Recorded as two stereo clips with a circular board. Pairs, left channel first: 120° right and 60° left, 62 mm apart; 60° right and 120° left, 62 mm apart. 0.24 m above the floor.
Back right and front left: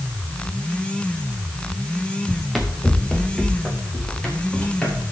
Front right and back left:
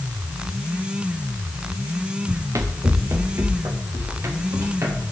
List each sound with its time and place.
2.3 s running footsteps: 150° left, 1.6 m; by 5.0 s 165° left, 5 m